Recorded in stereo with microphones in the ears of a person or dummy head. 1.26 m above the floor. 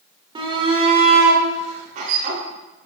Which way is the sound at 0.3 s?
30° right (ahead or behind).